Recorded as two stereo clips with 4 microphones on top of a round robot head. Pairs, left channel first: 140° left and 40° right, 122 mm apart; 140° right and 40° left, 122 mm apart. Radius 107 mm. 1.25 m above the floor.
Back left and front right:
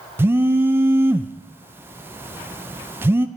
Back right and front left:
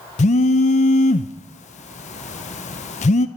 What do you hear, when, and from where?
0.2 s a phone buzzing: 110° right, 0.5 m